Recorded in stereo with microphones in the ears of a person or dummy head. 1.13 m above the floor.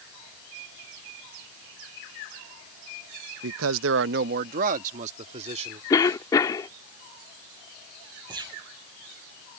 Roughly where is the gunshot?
Right.